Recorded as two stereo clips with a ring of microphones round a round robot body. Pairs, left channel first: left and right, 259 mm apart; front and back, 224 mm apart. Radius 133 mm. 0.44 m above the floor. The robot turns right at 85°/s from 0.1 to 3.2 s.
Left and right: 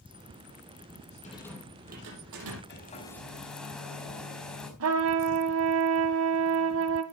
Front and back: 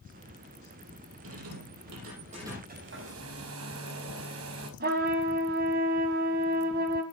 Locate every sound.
1.2 s a rattle: 155° left, 6 m; by 2.6 s 90° right, 6 m
2.7 s a hair dryer: 135° left, 4 m; by 4.7 s 175° left, 4 m
4.8 s a trumpet: 125° right, 1.7 m